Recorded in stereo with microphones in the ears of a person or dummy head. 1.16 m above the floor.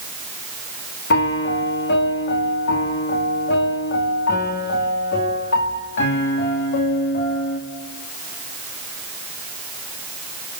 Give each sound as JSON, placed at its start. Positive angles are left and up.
{"t": 1.1, "sound": "a piano", "side_deg": 55, "distance_m": 2.5}